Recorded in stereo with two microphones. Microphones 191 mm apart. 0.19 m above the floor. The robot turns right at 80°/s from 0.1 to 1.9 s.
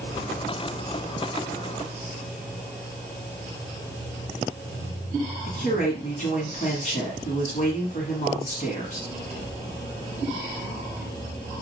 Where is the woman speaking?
45° left (ahead or behind), 1.4 m.